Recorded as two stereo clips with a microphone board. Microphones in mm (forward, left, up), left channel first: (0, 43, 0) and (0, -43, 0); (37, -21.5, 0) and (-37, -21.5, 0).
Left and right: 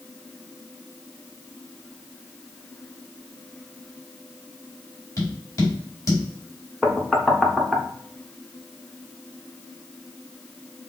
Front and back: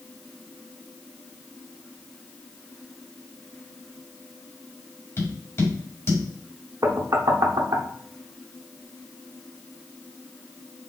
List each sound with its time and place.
5.2 s tapping: 45° left, 2.5 m
6.8 s knocking: straight behind, 0.7 m